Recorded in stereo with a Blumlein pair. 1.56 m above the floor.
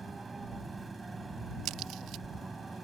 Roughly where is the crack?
Ahead right.